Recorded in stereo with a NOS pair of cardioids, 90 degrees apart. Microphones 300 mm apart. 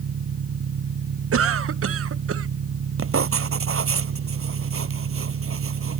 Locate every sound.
0.0 s an engine running: 55° right
1.3 s a cough: 55° right
3.0 s writing: 50° right